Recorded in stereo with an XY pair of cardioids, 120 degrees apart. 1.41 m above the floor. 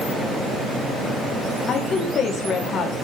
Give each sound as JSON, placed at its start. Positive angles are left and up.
{"t": 1.7, "sound": "a woman speaking", "azimuth_deg": 50, "distance_m": 3.0}